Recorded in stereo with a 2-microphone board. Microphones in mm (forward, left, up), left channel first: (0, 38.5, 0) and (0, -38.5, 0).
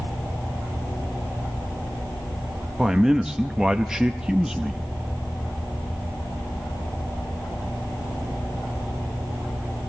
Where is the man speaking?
10° right (ahead or behind), 0.6 m.